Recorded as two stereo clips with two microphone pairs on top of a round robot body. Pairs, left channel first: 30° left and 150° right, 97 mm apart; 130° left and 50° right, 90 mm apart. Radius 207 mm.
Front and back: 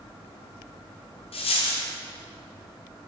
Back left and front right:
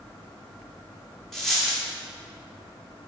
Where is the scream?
No scream in this recording.